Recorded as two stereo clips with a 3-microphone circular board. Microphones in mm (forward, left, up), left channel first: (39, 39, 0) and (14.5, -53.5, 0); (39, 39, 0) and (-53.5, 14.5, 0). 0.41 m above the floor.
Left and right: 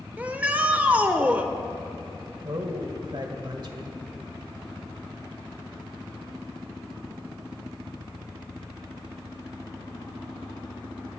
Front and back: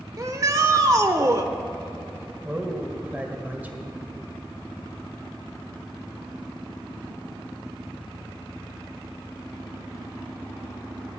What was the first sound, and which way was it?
A shout, 170° right.